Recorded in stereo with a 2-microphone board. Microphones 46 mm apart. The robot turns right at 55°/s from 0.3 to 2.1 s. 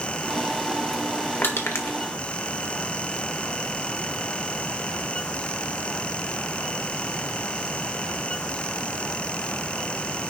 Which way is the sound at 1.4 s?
55° left (ahead or behind).